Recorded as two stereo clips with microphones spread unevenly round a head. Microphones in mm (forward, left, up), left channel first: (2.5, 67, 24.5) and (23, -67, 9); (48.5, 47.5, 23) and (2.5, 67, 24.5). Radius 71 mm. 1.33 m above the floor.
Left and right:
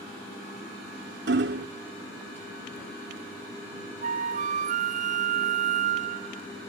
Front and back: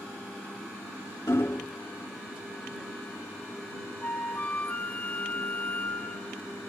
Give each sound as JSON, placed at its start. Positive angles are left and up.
{"t": 1.3, "sound": "hammering", "azimuth_deg": -90}
{"t": 4.0, "sound": "a flute", "azimuth_deg": -85}